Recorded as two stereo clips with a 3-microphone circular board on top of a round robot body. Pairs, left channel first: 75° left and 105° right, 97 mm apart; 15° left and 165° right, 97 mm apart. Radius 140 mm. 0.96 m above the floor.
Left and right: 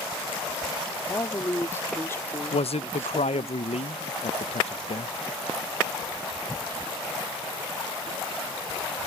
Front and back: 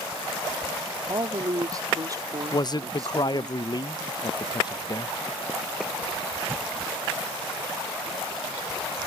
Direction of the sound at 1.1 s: 140° left.